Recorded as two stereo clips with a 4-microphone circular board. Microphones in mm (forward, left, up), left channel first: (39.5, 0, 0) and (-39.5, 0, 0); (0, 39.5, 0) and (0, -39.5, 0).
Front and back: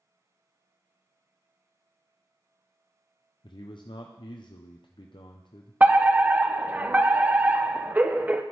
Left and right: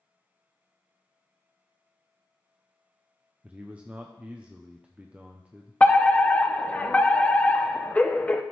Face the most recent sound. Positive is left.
turn(degrees=140)